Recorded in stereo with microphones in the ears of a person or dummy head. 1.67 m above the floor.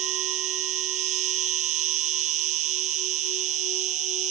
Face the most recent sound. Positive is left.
turn(degrees=-30)  # may be behind; listen again after turning